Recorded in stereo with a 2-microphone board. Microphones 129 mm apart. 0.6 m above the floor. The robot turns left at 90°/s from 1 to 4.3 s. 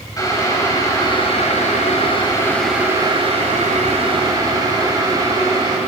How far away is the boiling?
About 2 m.